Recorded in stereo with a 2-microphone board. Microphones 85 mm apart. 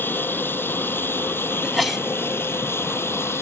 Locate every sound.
0.0 s an aircraft: 25° left (ahead or behind); by 3.4 s 30° left (ahead or behind)
1.6 s a sneeze: centre (ahead or behind)